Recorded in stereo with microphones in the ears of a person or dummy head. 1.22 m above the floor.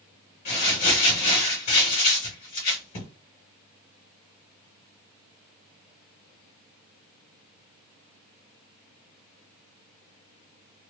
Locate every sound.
0.5 s crumpling: 50° left (ahead or behind), 1.4 m